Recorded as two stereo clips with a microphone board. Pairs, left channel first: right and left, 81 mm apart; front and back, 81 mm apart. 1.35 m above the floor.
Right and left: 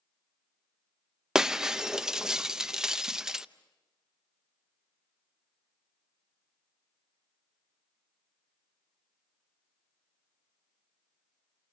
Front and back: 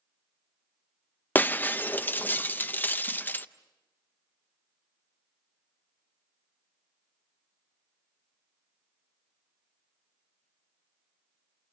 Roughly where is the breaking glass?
Ahead.